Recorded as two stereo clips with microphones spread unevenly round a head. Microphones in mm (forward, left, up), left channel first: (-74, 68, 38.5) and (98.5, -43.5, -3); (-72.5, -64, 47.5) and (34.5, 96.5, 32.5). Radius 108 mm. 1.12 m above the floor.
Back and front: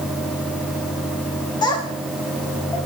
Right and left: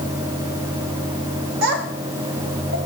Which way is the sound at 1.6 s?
80° left.